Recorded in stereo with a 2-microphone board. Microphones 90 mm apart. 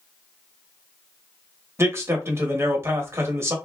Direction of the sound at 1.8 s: 30° right (ahead or behind).